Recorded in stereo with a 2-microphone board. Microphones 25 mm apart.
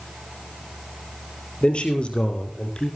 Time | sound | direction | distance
1.6 | a man speaking | 50° left (ahead or behind) | 4.5 m